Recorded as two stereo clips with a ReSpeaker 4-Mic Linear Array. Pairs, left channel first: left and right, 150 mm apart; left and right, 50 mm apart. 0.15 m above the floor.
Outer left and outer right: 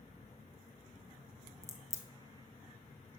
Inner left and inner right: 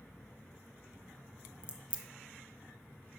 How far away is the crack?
About 0.9 m.